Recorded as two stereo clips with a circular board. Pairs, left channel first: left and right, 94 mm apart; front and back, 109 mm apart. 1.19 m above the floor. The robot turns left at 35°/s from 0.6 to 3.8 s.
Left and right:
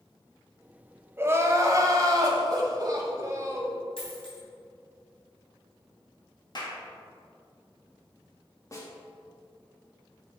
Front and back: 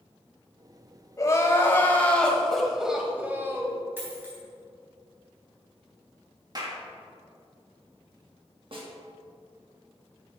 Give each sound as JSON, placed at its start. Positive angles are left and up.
{"t": 1.2, "sound": "crying", "azimuth_deg": -40, "distance_m": 1.2}
{"t": 4.0, "sound": "a dropped coin", "azimuth_deg": 110, "distance_m": 3.0}
{"t": 6.5, "sound": "a clap", "azimuth_deg": 130, "distance_m": 1.7}
{"t": 8.7, "sound": "a snare drum", "azimuth_deg": 145, "distance_m": 1.8}